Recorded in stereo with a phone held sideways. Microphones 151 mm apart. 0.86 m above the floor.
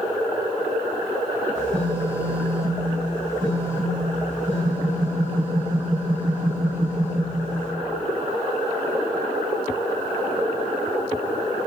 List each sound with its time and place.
1.6 s a phone buzzing: 50° right (ahead or behind), 1.2 m